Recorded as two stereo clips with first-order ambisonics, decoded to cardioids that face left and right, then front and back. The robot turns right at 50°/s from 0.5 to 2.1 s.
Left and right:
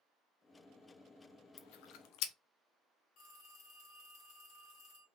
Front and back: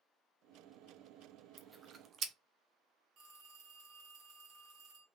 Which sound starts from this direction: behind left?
A phone ringing, at 3.2 s.